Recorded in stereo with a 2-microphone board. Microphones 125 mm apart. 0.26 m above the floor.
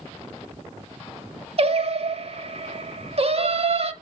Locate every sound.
1.6 s singing: 50° right (ahead or behind), 0.7 m